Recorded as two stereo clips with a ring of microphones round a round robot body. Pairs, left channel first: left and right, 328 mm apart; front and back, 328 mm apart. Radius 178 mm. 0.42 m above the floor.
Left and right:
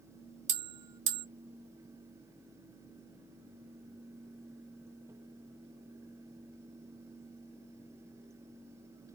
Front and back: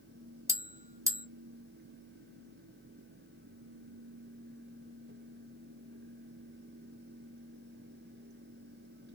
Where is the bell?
100° right, 1.0 m.